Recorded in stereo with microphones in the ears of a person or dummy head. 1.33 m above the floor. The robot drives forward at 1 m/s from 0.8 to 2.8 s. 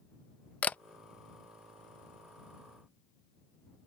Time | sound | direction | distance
0.6 | a camera shutter | 10° left (ahead or behind) | ?